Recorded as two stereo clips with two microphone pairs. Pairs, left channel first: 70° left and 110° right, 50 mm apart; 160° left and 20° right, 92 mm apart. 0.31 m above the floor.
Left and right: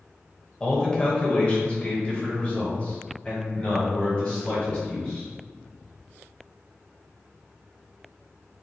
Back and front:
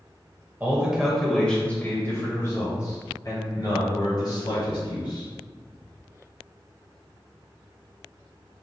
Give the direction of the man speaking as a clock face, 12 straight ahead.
11 o'clock.